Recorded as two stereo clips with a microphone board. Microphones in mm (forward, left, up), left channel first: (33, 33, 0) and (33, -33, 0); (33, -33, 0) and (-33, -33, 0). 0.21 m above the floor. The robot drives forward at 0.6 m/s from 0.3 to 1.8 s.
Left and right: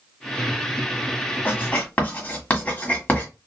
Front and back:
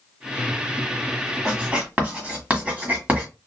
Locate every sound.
1.4 s writing: 120° left, 1.4 m; by 3.3 s 135° left, 1.5 m